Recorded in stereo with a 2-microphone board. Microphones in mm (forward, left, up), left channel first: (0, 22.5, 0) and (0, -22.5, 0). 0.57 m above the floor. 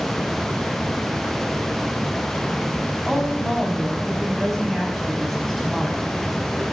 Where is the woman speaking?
5° left (ahead or behind), 4.5 m.